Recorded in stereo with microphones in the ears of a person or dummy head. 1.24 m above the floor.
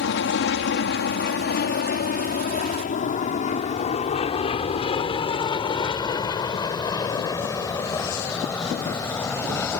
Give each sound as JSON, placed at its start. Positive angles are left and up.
{"t": 0.0, "sound": "an aircraft", "side_deg": 60}